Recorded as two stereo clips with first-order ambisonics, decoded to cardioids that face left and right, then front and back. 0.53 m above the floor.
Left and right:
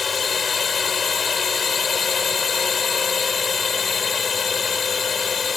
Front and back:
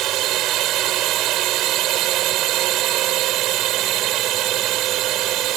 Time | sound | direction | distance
0.0 | a drone | 155° left | ?